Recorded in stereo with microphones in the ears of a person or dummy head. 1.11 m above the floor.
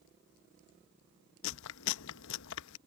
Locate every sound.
1.4 s chewing: 70° left (ahead or behind)